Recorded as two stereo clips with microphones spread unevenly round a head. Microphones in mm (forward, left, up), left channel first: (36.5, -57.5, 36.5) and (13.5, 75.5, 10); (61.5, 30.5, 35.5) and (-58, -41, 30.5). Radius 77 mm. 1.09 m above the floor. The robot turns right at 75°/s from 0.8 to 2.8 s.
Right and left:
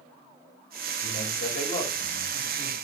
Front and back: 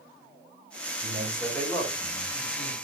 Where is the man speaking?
105° right, 6.5 m; by 2.7 s 30° left, 6.5 m.